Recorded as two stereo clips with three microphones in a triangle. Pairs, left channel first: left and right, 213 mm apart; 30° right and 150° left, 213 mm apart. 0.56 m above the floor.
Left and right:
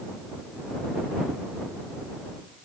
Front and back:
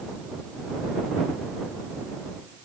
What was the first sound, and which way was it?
Only background noise.